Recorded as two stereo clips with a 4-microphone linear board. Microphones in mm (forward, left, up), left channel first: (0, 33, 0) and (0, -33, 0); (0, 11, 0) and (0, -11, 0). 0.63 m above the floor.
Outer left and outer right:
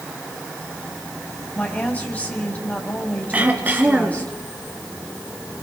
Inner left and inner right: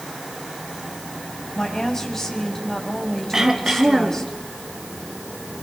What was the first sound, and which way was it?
A woman speaking, 25° left (ahead or behind).